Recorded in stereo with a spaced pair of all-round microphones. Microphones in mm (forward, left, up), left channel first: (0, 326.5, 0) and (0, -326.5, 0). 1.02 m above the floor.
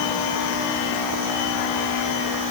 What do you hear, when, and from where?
Only background noise.